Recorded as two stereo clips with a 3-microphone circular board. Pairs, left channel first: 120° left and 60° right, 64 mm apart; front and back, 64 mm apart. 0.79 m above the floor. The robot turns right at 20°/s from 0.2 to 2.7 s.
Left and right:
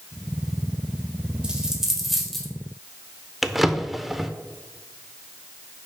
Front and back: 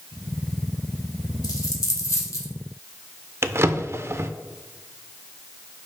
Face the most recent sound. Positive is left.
turn(degrees=-145)